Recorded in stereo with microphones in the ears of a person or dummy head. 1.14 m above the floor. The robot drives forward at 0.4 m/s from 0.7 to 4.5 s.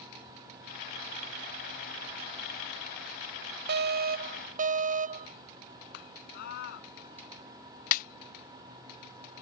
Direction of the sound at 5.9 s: 60° left (ahead or behind).